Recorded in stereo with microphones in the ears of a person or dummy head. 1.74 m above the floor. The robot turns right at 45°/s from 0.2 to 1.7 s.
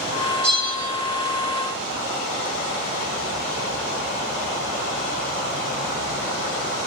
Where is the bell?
20° right (ahead or behind), 2 m; by 0.9 s 5° left (ahead or behind), 2 m.